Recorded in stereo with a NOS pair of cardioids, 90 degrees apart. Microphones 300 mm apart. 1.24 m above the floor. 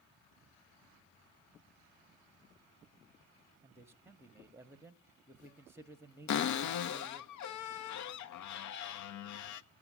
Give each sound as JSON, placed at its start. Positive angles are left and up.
{"t": 3.6, "sound": "a man speaking", "azimuth_deg": -10, "distance_m": 0.8}
{"t": 6.3, "sound": "a cupboard door", "azimuth_deg": 70, "distance_m": 0.7}